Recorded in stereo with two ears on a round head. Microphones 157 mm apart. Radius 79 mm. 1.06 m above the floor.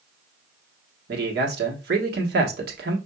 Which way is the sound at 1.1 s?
60° right (ahead or behind).